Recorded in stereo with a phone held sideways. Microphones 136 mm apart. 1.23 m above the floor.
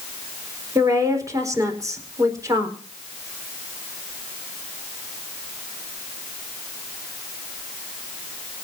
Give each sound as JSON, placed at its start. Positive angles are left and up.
{"t": 0.8, "sound": "a woman speaking", "side_deg": -25, "distance_m": 4.5}